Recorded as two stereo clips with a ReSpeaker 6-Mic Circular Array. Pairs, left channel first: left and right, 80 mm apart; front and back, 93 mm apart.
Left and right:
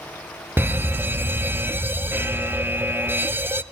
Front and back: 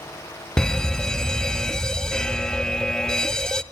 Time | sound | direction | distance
0.6 | a fire alarm | 75° right | 0.6 m